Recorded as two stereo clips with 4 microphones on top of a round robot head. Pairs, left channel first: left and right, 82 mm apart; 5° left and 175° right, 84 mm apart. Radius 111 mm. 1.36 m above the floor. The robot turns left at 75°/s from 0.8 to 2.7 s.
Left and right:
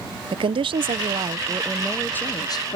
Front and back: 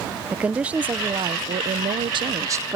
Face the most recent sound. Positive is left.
turn(degrees=120)